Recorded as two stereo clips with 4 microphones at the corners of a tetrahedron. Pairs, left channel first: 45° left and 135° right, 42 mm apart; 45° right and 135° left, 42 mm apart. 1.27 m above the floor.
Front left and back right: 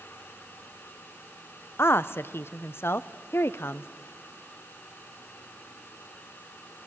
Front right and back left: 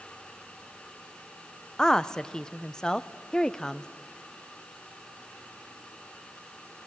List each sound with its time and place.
1.8 s a woman speaking: 30° left, 0.6 m